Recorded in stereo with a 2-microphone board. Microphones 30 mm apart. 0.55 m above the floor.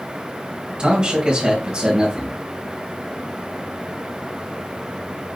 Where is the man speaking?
30° right (ahead or behind), 2.5 m.